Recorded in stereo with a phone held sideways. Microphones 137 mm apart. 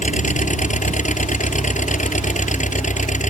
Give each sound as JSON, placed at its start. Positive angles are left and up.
{"t": 0.0, "sound": "an engine running", "side_deg": 65}